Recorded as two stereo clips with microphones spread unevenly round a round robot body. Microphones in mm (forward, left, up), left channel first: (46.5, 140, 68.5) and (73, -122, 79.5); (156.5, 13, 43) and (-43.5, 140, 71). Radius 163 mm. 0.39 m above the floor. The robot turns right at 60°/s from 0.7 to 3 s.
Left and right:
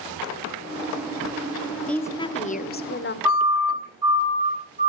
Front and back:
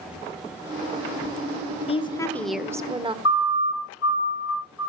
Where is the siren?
5° right, 5.5 m; by 4.9 s 20° right, 5.5 m.